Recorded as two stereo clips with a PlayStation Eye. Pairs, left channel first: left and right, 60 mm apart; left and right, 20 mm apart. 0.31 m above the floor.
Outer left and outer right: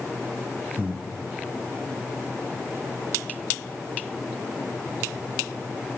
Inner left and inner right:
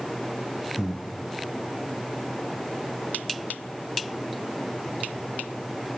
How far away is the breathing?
About 2 m.